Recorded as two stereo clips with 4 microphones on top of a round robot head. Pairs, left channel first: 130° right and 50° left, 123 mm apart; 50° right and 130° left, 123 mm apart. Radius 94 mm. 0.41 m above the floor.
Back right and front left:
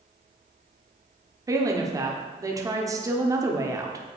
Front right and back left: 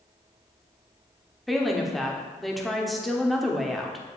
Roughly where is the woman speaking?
Ahead left.